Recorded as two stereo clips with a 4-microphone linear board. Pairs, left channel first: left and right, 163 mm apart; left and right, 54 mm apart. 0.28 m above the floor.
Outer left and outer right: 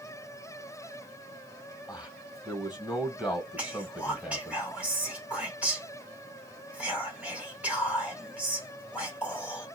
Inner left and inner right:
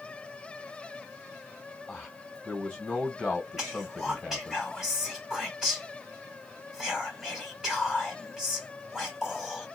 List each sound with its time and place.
1.9 s a man speaking: 5° right (ahead or behind), 1.7 m
3.6 s whispering: 10° right (ahead or behind), 1.6 m